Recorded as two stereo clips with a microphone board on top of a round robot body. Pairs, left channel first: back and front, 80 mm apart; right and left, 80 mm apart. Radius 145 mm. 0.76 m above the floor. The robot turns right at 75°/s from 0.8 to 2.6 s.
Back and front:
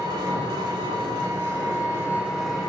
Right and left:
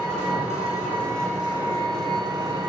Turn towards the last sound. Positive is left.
turn(degrees=100)